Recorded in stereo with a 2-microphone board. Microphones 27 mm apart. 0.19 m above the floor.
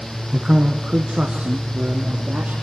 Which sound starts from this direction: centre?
A man speaking, at 0.3 s.